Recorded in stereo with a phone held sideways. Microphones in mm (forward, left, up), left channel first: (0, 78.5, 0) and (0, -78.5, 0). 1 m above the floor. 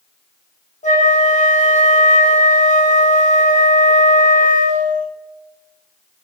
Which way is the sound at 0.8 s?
50° left (ahead or behind).